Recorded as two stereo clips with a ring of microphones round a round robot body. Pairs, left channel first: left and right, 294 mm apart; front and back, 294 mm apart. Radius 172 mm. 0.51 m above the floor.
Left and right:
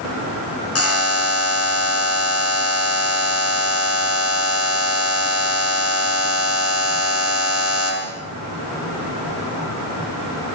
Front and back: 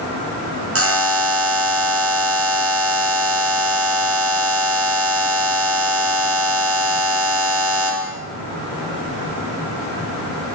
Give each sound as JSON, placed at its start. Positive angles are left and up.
{"t": 0.8, "sound": "a buzzer", "azimuth_deg": 135, "distance_m": 5.0}